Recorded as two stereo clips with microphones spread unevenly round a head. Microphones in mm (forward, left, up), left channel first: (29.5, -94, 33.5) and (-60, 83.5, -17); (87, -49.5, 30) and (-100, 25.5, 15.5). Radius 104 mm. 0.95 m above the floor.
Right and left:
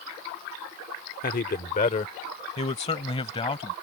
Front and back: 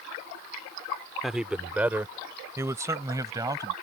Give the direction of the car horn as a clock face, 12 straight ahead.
No car horn in this recording.